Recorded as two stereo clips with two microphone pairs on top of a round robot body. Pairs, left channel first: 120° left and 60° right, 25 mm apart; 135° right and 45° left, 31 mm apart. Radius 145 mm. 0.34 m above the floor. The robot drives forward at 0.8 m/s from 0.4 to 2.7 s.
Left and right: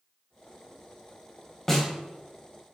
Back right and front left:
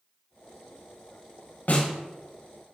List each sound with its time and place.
1.7 s a snare drum: 160° right, 1.6 m; by 1.9 s 165° right, 1.8 m